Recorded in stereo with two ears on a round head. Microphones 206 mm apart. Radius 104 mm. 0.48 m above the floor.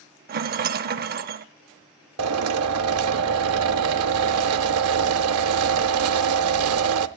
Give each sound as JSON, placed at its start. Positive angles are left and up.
{"t": 0.3, "sound": "a rattle", "side_deg": -40, "distance_m": 0.6}
{"t": 2.2, "sound": "a drill", "side_deg": -65, "distance_m": 0.6}